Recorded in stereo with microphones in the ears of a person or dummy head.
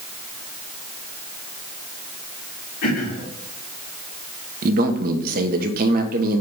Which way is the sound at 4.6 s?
55° right (ahead or behind).